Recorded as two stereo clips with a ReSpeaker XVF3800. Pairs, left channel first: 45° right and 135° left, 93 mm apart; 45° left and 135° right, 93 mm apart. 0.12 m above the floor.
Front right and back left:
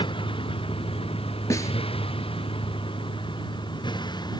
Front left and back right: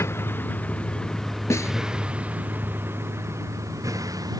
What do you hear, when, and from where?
0.0 s a vehicle: 20° right; by 4.4 s 85° right
1.5 s a snare drum: straight ahead